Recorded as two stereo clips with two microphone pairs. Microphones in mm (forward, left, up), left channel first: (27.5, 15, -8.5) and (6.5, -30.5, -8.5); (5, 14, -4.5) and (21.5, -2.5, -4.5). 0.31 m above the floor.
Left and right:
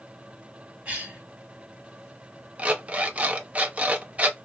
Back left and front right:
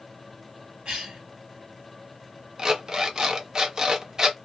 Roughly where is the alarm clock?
Right.